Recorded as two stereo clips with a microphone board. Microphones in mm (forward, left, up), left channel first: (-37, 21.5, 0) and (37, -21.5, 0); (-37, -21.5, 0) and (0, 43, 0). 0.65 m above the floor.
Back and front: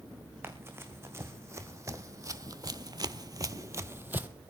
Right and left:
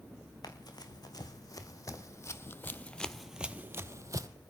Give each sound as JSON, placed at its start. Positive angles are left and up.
{"t": 0.4, "sound": "running footsteps", "azimuth_deg": -95, "distance_m": 2.5}